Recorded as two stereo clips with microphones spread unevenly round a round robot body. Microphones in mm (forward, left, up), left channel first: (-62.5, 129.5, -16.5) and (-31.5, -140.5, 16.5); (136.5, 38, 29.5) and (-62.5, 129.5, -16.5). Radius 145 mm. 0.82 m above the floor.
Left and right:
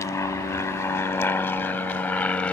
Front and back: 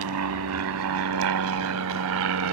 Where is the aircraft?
175° left; by 2.5 s straight behind.